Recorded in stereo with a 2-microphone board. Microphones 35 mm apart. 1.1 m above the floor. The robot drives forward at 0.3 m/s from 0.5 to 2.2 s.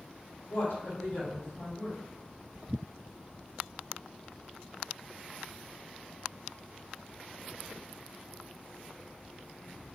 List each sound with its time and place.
0.5 s a woman speaking: 85° left, 1.4 m; by 2.0 s 75° left (ahead or behind), 1.5 m